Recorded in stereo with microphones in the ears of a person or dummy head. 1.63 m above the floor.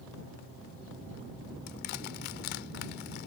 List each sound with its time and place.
1.7 s crushing: 50° left (ahead or behind)